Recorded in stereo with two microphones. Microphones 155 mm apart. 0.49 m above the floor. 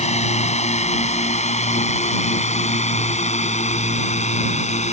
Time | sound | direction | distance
0.0 | a drone | 45° left (ahead or behind) | ?